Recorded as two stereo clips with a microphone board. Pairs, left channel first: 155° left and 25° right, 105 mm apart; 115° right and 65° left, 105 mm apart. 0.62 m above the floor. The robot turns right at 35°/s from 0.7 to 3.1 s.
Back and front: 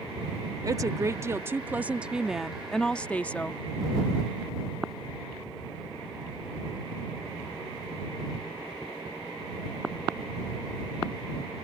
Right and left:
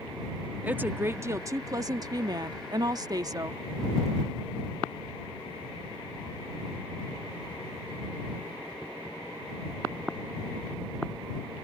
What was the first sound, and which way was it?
A woman speaking, 5° left.